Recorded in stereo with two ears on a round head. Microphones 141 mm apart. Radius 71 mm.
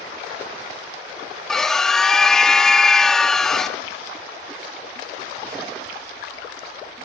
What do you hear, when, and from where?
1.5 s a scream: 5° left (ahead or behind), 0.8 m